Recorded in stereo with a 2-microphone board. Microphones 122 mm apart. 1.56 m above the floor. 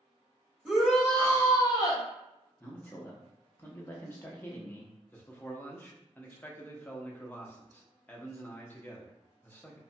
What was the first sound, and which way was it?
A shout, 5° right (ahead or behind).